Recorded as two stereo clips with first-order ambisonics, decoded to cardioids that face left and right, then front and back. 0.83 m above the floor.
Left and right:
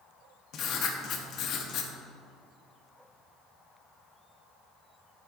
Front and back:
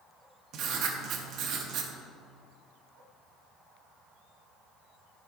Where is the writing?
140° left, 0.7 m.